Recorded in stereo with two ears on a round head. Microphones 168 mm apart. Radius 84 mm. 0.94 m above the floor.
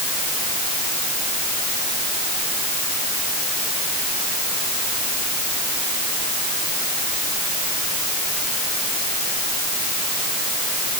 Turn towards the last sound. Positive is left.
No sound to turn to.